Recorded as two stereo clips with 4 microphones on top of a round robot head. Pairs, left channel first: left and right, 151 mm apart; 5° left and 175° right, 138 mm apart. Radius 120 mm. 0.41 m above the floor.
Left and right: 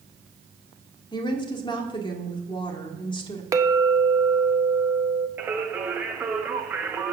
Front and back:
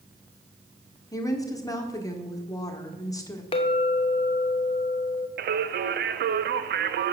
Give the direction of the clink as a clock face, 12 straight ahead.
1 o'clock.